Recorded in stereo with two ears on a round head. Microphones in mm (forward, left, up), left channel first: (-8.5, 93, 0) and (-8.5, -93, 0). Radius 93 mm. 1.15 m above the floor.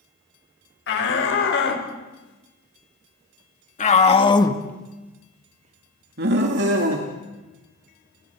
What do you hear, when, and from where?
0.9 s a shout: 65° left (ahead or behind), 5.5 m; by 7.1 s 70° right (ahead or behind), 3 m